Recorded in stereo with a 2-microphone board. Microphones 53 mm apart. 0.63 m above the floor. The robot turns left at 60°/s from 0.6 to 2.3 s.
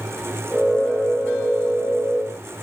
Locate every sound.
Only background noise.